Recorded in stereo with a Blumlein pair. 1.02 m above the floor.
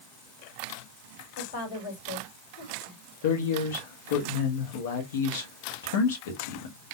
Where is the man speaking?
55° left, 1.3 m.